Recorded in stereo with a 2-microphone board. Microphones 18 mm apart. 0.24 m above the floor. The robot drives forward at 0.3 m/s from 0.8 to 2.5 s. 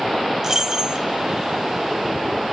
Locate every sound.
0.4 s keys jangling: 35° right (ahead or behind), 1.0 m